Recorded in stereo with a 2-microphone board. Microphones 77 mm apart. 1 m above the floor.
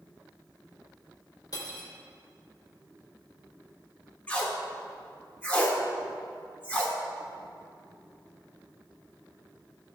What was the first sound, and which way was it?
Cutlery clinking, 55° left (ahead or behind).